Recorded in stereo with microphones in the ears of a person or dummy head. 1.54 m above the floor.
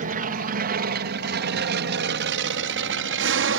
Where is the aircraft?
50° right (ahead or behind); by 3.6 s 70° right (ahead or behind).